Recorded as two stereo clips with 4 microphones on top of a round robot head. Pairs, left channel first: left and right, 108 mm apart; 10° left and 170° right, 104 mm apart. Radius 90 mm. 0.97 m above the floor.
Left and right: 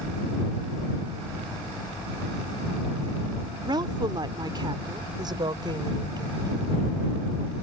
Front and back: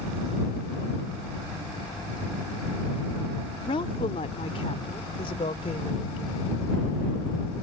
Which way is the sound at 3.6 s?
40° right.